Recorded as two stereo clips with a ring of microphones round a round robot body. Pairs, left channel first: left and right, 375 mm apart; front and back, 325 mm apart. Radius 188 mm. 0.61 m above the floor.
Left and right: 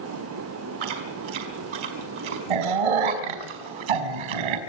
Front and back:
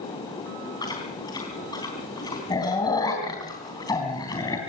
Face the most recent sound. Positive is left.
turn(degrees=-80)